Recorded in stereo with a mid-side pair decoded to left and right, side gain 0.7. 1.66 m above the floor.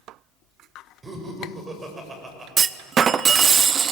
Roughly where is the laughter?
Ahead right.